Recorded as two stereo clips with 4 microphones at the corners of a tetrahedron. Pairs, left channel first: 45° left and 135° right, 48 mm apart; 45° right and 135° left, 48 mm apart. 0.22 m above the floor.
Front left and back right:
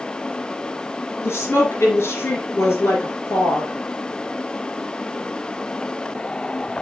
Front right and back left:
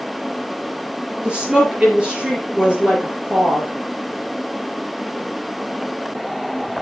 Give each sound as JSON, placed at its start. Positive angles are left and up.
{"t": 1.2, "sound": "a woman speaking", "azimuth_deg": 65, "distance_m": 3.5}